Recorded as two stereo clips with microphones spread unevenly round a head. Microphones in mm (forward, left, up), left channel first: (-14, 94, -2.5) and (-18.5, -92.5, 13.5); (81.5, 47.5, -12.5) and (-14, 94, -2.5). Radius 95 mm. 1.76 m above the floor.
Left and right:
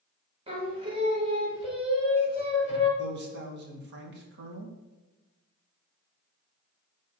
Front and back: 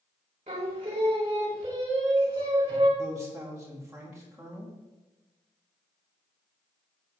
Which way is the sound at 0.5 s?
155° right.